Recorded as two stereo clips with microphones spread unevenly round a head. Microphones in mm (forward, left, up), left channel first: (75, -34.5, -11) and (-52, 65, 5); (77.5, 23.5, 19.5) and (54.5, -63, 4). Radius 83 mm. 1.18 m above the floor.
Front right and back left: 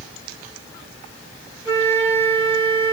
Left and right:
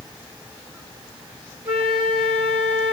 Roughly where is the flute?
Behind right.